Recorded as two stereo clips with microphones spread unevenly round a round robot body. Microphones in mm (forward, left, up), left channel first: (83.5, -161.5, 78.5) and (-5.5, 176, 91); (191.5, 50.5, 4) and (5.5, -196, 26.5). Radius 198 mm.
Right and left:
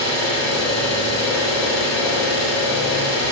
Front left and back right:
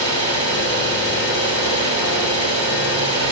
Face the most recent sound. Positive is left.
turn(degrees=150)